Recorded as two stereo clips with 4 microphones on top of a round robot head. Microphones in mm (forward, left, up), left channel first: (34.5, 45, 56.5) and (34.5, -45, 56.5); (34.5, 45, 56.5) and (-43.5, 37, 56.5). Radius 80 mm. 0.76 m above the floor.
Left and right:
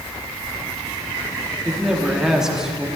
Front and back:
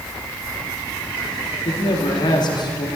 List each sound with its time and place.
1.6 s a man speaking: 5° right, 1.9 m